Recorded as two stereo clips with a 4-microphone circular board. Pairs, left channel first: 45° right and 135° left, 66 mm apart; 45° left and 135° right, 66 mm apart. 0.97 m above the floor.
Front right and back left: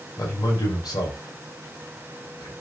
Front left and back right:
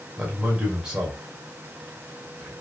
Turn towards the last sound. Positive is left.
turn(degrees=-55)